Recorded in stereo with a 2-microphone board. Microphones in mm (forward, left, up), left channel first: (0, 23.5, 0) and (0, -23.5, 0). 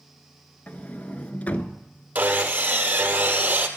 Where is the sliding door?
35° left (ahead or behind), 0.7 m.